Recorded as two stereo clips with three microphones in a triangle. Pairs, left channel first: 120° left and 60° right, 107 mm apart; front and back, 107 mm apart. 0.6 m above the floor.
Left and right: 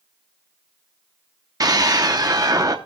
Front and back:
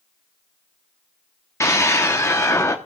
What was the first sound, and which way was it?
A scream, 40° right.